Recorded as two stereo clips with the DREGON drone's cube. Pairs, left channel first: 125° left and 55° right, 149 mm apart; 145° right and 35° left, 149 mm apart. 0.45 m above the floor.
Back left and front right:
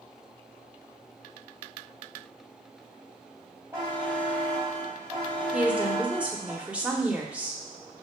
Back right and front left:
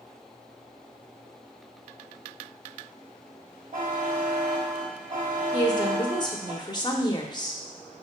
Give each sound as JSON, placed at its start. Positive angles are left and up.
{"t": 3.7, "sound": "a buzzer", "azimuth_deg": 15, "distance_m": 2.0}
{"t": 5.5, "sound": "a woman speaking", "azimuth_deg": -130, "distance_m": 0.8}